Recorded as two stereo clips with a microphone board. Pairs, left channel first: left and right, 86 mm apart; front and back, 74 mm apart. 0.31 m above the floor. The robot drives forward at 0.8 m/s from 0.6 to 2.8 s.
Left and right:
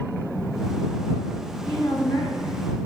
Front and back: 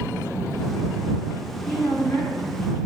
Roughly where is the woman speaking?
Left.